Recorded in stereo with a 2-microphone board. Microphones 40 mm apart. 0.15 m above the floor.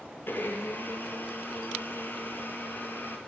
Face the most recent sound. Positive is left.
turn(degrees=65)  # may be behind; listen again after turning